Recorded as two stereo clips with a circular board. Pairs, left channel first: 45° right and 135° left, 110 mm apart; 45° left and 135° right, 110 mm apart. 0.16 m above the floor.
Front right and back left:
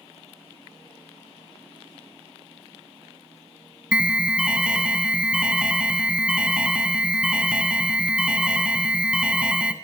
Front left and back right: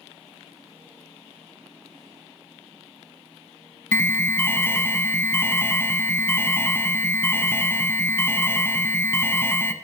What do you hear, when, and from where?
3.9 s an alarm: 70° left, 0.7 m